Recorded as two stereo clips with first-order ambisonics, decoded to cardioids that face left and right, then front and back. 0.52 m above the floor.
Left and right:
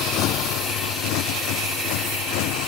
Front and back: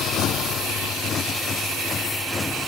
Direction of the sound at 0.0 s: 50° left.